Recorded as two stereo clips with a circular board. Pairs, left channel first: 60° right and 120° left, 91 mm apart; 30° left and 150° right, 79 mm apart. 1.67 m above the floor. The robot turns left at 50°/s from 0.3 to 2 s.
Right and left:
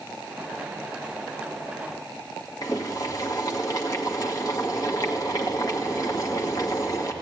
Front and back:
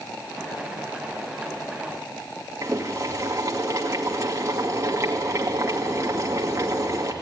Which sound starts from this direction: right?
Boiling, at 2.6 s.